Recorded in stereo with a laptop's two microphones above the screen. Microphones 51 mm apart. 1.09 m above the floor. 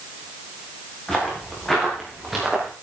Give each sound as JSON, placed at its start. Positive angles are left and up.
{"t": 1.1, "sound": "footsteps", "side_deg": 15, "distance_m": 5.0}